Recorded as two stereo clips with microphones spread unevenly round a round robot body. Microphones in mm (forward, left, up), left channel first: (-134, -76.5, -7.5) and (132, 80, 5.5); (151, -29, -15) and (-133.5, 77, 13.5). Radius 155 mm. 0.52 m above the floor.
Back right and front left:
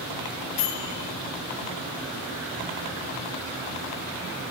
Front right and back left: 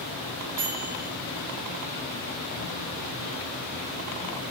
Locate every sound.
0.6 s a microwave: 175° left, 6.5 m